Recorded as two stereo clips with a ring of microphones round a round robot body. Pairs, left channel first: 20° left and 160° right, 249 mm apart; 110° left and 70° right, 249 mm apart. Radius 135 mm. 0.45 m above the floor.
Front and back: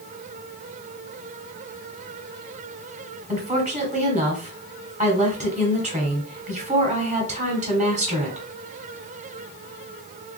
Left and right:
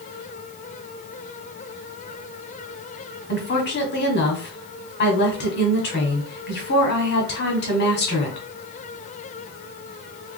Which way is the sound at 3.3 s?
145° left.